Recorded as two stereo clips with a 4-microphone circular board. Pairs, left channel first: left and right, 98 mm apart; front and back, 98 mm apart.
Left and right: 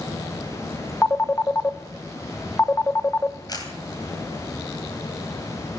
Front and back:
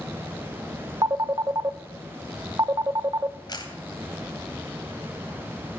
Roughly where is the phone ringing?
Behind left.